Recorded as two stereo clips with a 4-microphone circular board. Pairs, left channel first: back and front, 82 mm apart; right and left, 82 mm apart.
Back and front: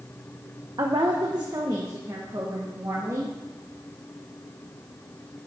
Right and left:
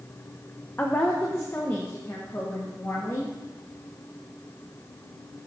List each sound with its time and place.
0.8 s a woman speaking: 25° right, 0.8 m; by 3.4 s 40° right, 2 m